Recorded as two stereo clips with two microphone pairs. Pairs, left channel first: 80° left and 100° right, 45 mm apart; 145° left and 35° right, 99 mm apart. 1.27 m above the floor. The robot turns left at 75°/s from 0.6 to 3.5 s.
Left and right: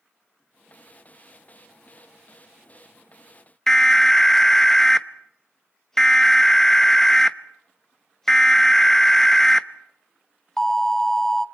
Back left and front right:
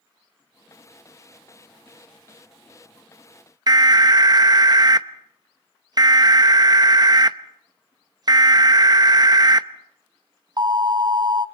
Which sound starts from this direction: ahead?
An alarm, at 3.7 s.